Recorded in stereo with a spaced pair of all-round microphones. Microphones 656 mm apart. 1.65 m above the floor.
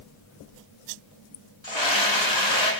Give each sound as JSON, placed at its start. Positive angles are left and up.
{"t": 1.6, "sound": "a scream", "side_deg": 40, "distance_m": 4.0}